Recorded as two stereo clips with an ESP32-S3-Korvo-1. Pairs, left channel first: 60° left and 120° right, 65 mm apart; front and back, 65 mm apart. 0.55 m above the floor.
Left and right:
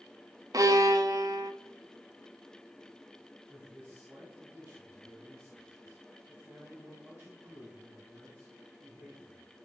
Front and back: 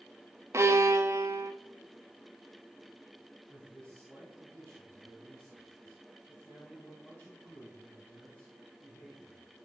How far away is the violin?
About 0.8 m.